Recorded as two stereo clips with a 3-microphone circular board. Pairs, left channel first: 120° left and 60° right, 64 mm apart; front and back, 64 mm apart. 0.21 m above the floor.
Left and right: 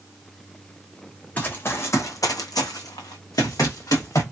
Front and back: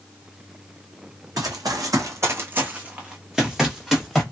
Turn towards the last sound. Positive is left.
turn(degrees=85)